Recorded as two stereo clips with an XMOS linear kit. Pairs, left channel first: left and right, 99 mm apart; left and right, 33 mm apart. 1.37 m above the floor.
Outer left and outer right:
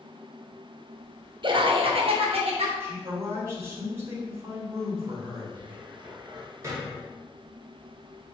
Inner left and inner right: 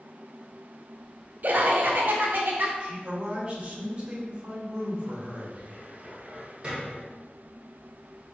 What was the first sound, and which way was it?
Laughter, 50° right (ahead or behind).